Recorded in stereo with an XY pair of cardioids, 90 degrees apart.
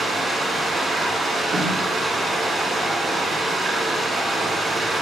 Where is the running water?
50° right, 2 m.